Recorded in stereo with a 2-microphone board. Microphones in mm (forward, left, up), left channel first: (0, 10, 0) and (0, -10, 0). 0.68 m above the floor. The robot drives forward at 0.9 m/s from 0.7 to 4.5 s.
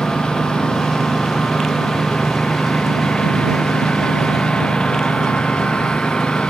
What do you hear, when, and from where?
0.0 s a lawn mower: 60° left (ahead or behind); by 6.5 s 65° left (ahead or behind)